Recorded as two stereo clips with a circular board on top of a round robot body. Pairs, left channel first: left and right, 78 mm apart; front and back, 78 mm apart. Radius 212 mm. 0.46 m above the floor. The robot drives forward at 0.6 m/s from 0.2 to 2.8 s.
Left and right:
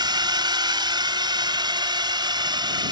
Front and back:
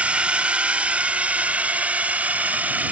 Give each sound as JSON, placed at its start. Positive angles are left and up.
{"t": 0.0, "sound": "a drone", "azimuth_deg": -105}